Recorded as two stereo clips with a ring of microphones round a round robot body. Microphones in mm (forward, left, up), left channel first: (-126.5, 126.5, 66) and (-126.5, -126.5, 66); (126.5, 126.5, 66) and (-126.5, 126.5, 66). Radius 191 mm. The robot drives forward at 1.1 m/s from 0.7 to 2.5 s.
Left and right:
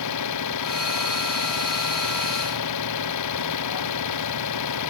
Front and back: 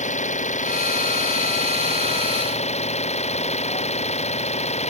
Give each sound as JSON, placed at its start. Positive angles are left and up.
{"t": 0.0, "sound": "an engine running", "azimuth_deg": 60}